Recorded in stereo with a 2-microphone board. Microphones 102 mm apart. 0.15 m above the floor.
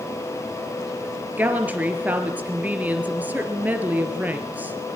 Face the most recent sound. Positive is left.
turn(degrees=-15)  # may be behind; listen again after turning